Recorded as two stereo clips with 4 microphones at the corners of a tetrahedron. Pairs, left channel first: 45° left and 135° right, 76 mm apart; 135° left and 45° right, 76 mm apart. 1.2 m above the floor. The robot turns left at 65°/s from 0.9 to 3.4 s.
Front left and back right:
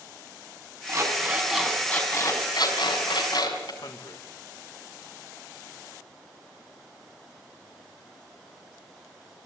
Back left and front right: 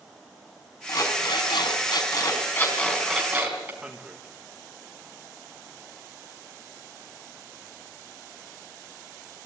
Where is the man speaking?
30° left, 1.5 m.